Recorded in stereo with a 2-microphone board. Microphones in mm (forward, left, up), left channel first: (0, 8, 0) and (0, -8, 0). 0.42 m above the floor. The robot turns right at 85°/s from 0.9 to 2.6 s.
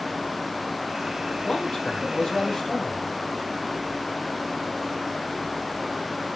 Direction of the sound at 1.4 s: 60° left.